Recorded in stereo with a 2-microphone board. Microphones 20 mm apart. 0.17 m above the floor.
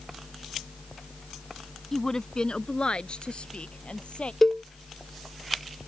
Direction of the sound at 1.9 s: 20° left (ahead or behind).